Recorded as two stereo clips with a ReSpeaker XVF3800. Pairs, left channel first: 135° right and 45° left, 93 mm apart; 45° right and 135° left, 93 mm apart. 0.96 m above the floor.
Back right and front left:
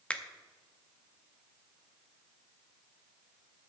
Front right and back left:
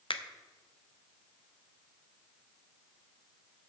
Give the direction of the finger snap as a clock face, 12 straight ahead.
2 o'clock.